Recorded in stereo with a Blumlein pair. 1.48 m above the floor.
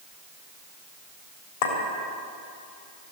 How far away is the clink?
About 3.5 m.